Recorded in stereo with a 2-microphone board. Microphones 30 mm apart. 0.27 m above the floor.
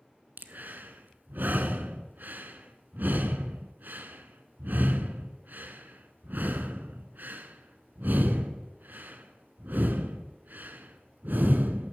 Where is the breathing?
75° right (ahead or behind), 0.7 m.